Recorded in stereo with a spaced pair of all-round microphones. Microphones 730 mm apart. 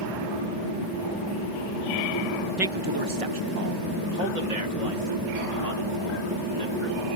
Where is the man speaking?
Centre (ahead or behind); by 7.1 s 85° right.